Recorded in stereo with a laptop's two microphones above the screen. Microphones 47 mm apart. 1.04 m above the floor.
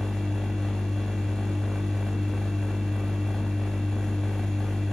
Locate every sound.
0.0 s a machine running: 10° left (ahead or behind), 1.0 m